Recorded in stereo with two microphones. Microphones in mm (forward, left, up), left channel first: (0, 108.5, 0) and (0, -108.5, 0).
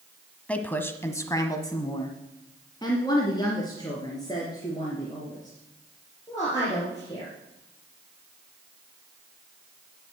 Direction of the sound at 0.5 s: 5° left (ahead or behind).